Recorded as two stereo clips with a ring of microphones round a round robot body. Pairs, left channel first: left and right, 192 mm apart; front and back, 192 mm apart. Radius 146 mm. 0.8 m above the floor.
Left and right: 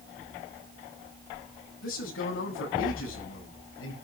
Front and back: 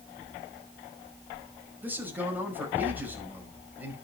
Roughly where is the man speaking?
Left.